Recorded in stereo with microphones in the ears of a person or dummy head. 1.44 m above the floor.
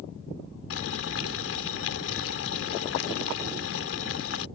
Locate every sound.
0.7 s boiling: 90° left